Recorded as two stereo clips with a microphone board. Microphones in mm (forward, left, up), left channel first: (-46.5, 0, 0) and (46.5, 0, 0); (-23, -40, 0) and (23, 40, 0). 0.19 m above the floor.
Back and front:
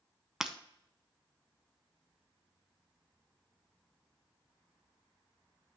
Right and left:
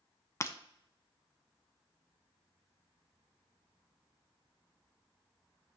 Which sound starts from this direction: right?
Breaking glass, at 0.4 s.